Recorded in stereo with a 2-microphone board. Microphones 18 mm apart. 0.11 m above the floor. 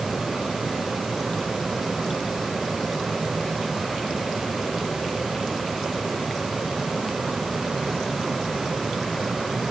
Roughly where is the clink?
I don't hear a clink.